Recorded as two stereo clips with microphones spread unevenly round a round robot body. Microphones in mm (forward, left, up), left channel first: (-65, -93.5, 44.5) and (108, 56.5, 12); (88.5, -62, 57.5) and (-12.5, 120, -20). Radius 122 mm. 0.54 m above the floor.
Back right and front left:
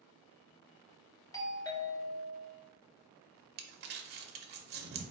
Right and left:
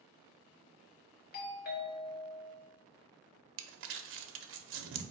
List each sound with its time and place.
1.3 s a doorbell: 70° right, 1.1 m
3.6 s crumpling: 90° left, 0.6 m